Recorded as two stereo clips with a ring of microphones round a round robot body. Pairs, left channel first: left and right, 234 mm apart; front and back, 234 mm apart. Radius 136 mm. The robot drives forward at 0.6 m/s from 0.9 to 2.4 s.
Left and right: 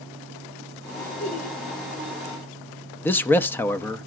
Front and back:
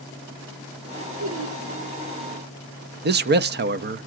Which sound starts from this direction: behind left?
Laughter, at 1.2 s.